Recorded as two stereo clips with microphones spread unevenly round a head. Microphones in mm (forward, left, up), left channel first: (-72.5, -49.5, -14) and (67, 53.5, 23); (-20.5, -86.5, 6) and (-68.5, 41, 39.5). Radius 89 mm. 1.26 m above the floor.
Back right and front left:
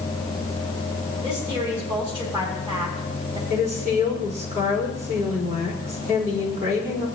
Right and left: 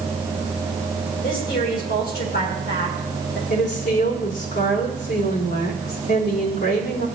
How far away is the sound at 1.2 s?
About 5 m.